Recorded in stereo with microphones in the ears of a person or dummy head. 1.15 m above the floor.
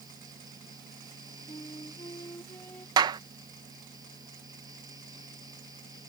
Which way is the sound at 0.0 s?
20° right (ahead or behind).